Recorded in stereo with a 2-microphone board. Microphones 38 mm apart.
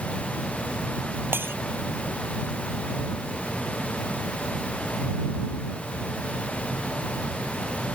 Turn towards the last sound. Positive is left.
turn(degrees=-85)